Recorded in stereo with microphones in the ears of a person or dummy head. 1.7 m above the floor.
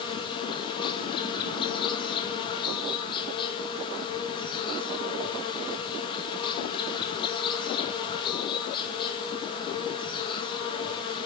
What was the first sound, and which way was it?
An insect, 25° left (ahead or behind).